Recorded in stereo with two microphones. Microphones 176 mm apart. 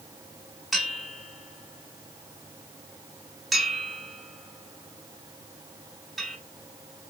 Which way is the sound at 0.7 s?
Centre (ahead or behind).